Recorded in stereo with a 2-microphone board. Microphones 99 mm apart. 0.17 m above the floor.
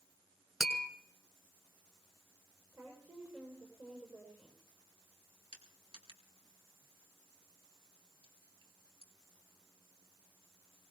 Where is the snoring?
I don't hear snoring.